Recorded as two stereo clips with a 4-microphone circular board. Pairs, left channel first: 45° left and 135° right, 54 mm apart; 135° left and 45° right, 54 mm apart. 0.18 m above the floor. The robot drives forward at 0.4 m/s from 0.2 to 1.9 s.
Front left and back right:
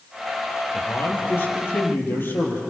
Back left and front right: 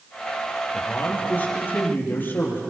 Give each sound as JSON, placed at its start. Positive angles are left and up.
{"t": 0.7, "sound": "a man speaking", "azimuth_deg": 85, "distance_m": 6.0}